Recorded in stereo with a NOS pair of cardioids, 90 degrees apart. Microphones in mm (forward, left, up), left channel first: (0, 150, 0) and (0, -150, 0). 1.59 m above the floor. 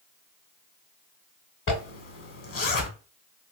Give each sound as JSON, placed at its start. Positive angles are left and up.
{"t": 1.7, "sound": "a zipper", "azimuth_deg": 45, "distance_m": 1.0}